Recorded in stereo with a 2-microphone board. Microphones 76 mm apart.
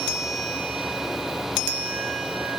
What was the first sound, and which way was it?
Only background noise.